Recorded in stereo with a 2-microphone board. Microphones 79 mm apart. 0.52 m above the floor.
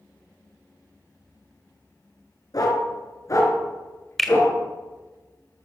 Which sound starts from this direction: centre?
A finger snap, at 4.2 s.